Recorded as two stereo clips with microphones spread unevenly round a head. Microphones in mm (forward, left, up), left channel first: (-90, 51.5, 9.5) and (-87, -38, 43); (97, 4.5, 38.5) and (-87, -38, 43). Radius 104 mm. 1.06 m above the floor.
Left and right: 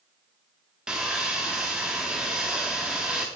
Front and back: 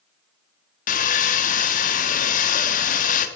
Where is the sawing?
25° right, 0.6 m.